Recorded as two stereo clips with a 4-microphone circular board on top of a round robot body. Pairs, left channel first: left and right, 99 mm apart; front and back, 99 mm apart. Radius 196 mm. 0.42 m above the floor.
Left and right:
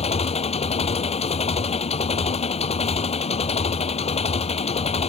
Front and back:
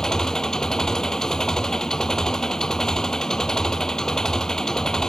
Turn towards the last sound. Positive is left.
turn(degrees=85)